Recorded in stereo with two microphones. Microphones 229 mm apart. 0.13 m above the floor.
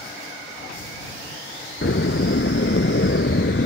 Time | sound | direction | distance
1.8 | a door slam | 55° left (ahead or behind) | ?